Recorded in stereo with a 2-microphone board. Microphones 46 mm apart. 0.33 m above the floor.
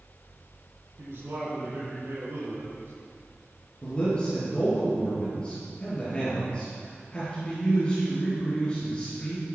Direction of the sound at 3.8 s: 25° left (ahead or behind).